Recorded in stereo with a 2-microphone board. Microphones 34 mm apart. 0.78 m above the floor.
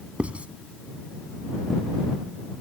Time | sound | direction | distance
0.2 | writing | 40° right (ahead or behind) | ?